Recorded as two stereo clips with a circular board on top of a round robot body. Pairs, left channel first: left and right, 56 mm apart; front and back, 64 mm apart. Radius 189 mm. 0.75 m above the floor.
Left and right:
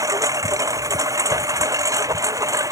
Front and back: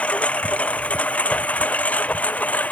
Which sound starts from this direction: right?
A lawn mower, at 0.0 s.